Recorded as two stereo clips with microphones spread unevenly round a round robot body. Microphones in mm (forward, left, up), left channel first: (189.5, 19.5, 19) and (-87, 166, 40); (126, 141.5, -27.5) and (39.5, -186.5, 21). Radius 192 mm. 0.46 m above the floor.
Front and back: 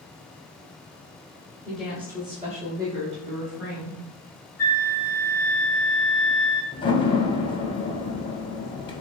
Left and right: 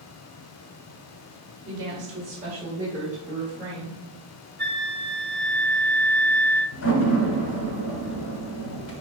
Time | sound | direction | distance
1.6 | a woman speaking | 100° right | 1.1 m
4.6 | a flute | 95° right | 1.3 m
6.7 | a door slam | 45° left | 1.0 m